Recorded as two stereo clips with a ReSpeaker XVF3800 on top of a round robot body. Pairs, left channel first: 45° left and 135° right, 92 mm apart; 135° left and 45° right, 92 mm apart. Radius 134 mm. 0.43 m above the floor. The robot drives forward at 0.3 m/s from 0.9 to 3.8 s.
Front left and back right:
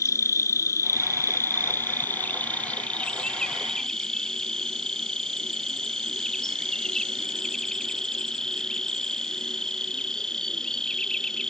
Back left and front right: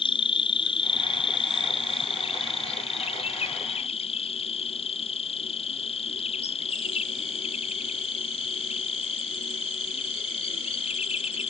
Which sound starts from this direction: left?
An insect, at 0.0 s.